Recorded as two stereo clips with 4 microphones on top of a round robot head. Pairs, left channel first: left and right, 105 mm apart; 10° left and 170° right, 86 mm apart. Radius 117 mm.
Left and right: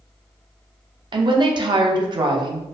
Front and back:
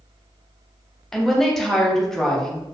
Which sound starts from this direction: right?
A woman speaking, at 1.1 s.